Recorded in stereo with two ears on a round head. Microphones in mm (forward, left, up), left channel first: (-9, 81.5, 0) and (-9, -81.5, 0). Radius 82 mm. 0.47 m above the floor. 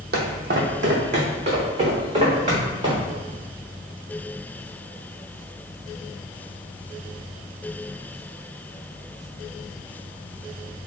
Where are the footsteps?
60° right (ahead or behind), 1.0 m; by 3.1 s 30° right (ahead or behind), 2.5 m.